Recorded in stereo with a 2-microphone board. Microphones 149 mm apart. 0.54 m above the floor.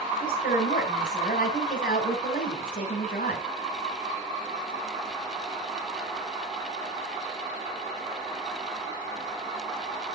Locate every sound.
0.2 s a woman speaking: 65° left (ahead or behind), 3.5 m